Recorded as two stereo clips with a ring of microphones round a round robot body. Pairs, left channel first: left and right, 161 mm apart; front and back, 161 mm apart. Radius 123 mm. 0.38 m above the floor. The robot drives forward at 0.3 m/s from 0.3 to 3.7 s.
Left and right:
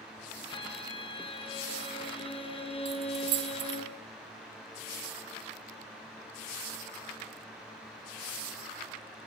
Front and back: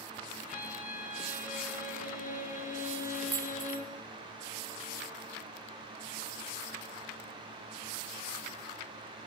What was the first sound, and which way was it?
A violin, 30° left.